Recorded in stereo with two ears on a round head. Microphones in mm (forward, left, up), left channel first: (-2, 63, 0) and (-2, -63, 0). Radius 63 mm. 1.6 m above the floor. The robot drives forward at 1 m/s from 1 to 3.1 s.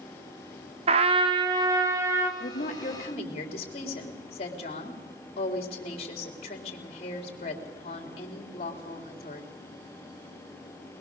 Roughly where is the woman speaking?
Left.